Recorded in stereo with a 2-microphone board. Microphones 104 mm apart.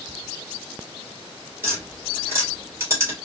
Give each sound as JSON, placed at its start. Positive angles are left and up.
{"t": 1.6, "sound": "tapping", "side_deg": -25, "distance_m": 2.5}